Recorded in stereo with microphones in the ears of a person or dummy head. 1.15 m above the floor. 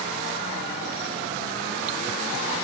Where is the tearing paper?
No tearing paper in this recording.